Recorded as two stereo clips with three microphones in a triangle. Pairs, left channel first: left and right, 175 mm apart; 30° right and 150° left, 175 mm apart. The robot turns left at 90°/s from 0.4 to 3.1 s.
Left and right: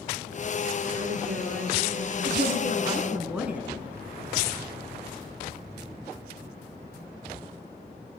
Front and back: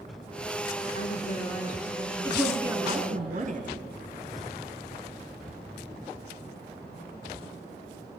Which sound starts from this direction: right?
A woman speaking, at 2.2 s.